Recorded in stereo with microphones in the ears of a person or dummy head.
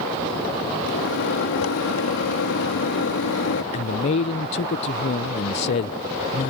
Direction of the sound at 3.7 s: 30° left (ahead or behind).